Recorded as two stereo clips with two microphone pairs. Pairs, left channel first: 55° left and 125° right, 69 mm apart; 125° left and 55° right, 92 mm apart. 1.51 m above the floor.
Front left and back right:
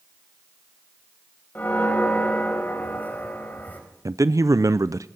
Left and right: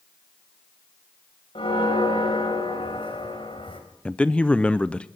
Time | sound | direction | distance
1.6 | a bell | 120° left | 4 m
4.0 | a man speaking | 160° right | 0.5 m